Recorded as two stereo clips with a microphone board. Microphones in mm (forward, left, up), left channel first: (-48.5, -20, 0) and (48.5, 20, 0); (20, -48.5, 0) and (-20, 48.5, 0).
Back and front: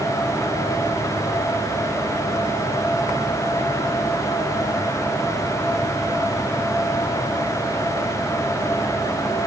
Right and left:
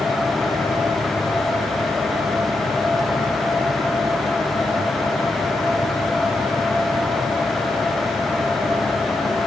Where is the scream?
No scream in this recording.